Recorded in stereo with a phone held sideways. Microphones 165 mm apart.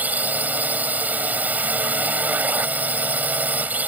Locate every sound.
0.0 s a drone: 10° right (ahead or behind)